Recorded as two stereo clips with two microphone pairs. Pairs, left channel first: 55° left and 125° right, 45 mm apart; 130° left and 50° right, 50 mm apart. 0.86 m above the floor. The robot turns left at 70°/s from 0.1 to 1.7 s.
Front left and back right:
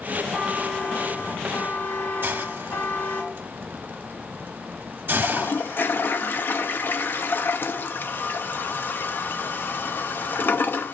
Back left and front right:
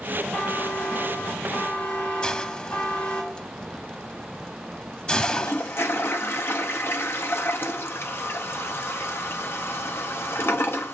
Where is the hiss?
160° right, 0.7 m.